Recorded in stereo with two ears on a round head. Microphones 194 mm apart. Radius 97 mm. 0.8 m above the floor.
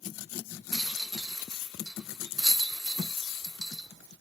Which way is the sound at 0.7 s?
Centre (ahead or behind).